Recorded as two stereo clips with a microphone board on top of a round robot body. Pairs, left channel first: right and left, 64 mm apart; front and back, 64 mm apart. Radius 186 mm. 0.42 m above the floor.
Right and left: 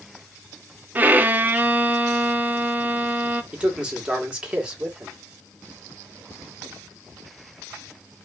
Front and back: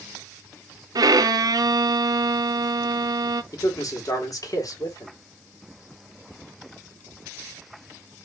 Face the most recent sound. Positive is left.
turn(degrees=15)